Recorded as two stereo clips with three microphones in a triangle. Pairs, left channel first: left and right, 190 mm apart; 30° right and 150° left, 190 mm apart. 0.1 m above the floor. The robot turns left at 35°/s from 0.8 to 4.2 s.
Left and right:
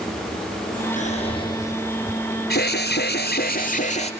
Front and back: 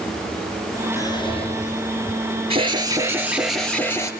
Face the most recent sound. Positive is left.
turn(degrees=35)